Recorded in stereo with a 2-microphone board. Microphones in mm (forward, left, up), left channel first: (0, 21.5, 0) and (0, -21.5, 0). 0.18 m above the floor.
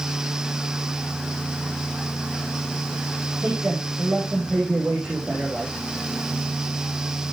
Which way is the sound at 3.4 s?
20° right (ahead or behind).